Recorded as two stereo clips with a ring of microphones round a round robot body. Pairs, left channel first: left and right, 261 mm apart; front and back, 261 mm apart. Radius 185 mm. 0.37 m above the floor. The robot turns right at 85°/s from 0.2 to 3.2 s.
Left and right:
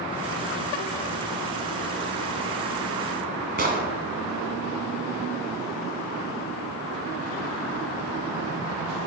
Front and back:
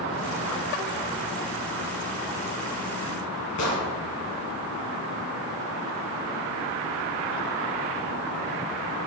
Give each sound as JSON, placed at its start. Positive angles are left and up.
{"t": 3.6, "sound": "an explosion", "azimuth_deg": -35, "distance_m": 1.5}